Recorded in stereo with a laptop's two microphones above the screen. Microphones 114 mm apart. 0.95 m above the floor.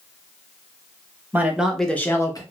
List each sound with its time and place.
1.3 s a man speaking: 15° right (ahead or behind), 0.9 m; by 2.4 s 35° left (ahead or behind), 0.8 m